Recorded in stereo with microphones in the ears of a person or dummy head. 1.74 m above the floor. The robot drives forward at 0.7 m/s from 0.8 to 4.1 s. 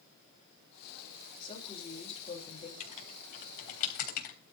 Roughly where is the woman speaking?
Left.